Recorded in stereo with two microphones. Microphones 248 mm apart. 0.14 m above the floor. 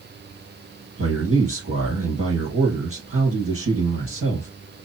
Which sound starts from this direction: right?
A man speaking, at 1.0 s.